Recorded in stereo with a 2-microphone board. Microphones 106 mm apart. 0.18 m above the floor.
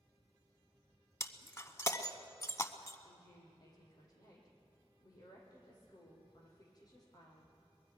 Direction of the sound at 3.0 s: 40° left (ahead or behind).